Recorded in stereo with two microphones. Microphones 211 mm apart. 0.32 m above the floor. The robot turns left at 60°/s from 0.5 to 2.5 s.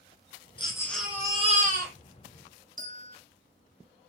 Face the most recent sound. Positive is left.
turn(degrees=-35)  # may be behind; listen again after turning